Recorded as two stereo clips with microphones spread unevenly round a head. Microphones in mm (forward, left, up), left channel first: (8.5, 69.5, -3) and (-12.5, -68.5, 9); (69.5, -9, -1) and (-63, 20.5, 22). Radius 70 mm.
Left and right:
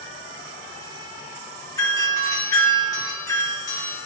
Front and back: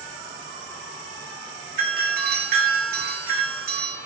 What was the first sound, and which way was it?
A doorbell, 145° left.